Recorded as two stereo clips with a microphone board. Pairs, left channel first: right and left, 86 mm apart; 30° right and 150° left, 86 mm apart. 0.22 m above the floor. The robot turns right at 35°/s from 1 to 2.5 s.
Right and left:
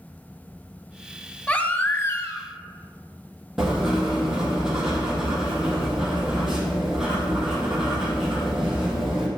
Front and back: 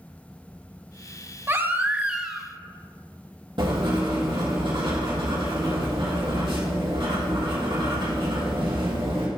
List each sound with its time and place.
1.5 s a baby crying: 160° right, 0.5 m; by 2.5 s 125° right, 0.5 m
3.6 s writing: 175° left, 2 m